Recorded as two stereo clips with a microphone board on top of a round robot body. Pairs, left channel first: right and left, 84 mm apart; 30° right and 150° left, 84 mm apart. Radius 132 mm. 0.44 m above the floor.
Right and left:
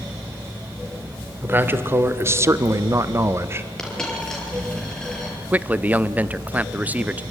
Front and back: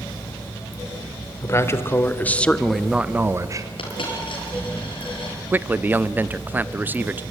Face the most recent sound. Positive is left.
turn(degrees=125)